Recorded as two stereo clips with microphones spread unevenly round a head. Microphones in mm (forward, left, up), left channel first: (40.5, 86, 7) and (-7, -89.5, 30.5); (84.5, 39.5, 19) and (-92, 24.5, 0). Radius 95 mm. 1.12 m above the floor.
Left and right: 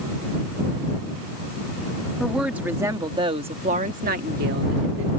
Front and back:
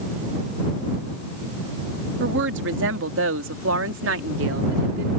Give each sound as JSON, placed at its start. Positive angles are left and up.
{"t": 2.2, "sound": "a woman speaking", "azimuth_deg": 165}